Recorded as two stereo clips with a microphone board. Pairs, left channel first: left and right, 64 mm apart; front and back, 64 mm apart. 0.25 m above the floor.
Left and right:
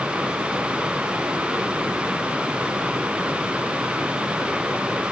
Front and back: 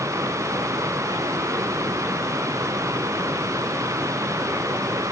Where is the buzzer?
I don't hear a buzzer.